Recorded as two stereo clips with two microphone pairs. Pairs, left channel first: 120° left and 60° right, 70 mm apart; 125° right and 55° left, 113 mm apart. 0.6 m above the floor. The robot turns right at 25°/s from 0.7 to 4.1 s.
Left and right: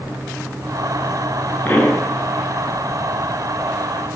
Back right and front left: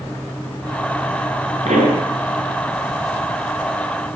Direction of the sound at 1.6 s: 55° left.